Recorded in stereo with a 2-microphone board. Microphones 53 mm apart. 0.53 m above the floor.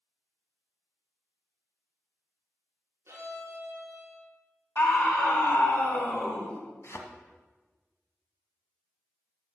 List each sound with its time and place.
3.1 s a violin: 55° right (ahead or behind), 2.5 m
4.8 s a scream: 50° left (ahead or behind), 3.5 m
6.8 s a thud: 50° left (ahead or behind), 1.2 m